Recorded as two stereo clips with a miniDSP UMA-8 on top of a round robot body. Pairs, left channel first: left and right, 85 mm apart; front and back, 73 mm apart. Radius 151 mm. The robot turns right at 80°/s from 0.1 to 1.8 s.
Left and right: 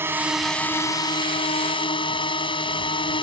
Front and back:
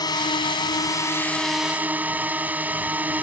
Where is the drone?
25° right; by 3.2 s 110° left.